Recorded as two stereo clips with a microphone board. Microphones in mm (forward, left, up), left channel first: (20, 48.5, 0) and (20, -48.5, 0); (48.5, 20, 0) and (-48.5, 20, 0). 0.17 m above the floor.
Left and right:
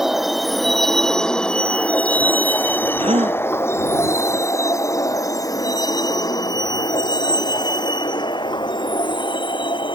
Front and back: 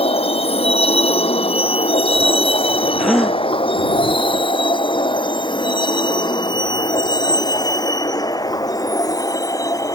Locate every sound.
0.0 s a vehicle: 5° right; by 10.0 s 55° left
3.0 s a gasp: 90° right